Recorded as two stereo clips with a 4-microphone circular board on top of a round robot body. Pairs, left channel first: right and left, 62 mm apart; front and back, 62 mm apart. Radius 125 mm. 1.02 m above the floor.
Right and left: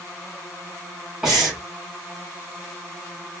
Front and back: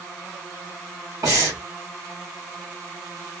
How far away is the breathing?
About 2.5 m.